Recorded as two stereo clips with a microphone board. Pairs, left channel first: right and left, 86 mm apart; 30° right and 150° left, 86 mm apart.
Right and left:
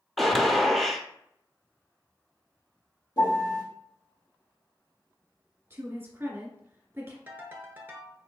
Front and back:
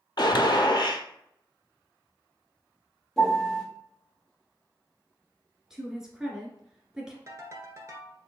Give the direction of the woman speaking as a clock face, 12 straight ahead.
10 o'clock.